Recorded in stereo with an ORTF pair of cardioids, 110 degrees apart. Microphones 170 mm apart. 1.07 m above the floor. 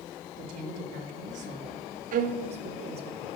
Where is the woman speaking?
55° right, 4 m; by 3.1 s 35° right, 3.5 m.